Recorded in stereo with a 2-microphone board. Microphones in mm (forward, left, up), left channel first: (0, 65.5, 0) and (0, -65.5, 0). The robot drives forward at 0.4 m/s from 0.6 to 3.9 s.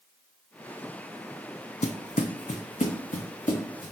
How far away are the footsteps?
About 0.5 m.